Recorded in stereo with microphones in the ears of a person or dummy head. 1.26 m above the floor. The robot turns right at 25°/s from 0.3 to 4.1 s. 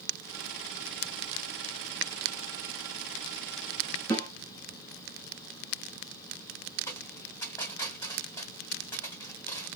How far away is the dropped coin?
About 2.5 m.